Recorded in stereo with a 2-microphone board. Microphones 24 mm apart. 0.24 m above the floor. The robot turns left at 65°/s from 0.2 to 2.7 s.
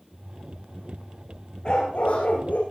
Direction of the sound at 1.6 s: 140° left.